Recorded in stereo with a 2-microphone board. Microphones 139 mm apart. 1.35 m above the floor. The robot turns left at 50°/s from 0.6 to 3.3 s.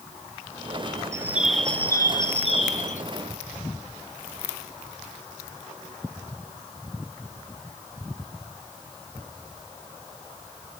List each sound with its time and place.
1.1 s a bird: 160° right, 1.0 m; by 3.0 s 105° left, 1.0 m